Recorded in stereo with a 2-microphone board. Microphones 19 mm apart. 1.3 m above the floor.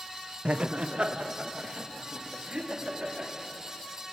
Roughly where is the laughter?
Right.